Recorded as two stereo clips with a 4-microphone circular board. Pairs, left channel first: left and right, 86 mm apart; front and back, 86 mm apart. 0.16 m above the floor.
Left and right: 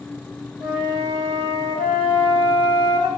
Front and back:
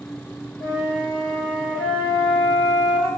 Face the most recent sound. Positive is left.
turn(degrees=-105)